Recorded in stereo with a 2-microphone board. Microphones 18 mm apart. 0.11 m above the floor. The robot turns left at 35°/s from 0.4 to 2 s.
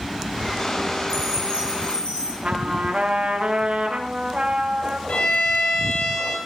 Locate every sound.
1.1 s a chime: 150° left, 7 m; by 2.3 s 120° left, 7 m
2.4 s a trumpet: 65° right (ahead or behind), 6 m
5.1 s a violin: 85° left, 8 m